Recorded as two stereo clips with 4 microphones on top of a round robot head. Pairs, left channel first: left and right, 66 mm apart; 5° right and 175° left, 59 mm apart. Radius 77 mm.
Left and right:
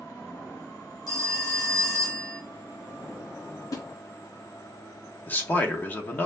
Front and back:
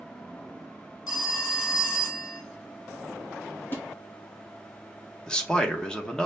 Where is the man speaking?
60° left, 1.0 m.